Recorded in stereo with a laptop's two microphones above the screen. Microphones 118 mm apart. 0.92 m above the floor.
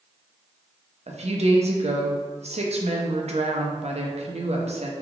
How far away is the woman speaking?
About 0.6 m.